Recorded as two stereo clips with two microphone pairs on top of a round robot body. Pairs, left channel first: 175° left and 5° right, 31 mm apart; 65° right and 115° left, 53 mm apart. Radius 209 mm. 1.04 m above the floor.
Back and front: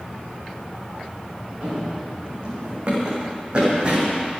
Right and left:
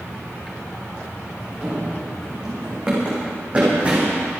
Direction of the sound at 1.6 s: 45° left.